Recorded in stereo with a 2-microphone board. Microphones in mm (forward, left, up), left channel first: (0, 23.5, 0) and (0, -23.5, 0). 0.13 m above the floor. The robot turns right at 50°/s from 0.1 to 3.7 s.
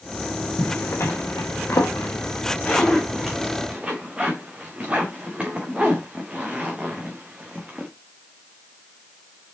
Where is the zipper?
45° left (ahead or behind), 2.5 m; by 7.9 s 20° right (ahead or behind), 2.5 m.